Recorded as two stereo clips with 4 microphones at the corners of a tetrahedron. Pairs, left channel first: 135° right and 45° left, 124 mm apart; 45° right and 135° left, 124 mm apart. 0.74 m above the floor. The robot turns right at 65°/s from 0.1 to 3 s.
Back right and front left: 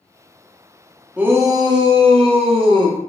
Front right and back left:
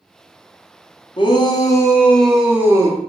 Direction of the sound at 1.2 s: 30° right.